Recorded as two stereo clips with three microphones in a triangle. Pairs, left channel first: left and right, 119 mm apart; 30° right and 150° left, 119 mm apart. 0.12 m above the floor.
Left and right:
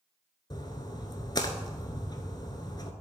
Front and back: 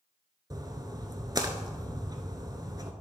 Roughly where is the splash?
Behind left.